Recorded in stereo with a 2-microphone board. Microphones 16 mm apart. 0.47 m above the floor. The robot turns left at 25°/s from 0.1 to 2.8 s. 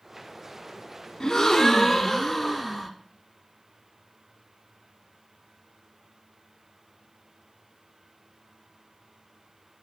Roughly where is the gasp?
Ahead left.